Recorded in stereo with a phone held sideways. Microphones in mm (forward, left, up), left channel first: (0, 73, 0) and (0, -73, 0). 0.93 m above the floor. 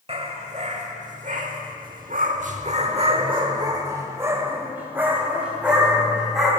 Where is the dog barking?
45° right (ahead or behind), 1.8 m; by 6.5 s 5° right (ahead or behind), 3 m.